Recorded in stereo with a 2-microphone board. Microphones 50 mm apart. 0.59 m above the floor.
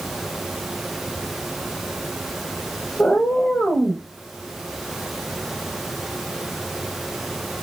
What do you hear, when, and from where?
3.0 s a cat meowing: 45° left (ahead or behind), 1.0 m